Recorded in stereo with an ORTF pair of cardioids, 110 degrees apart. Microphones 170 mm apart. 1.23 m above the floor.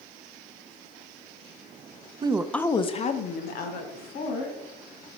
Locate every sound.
2.2 s a woman speaking: 30° right, 0.5 m; by 4.5 s 65° left, 2 m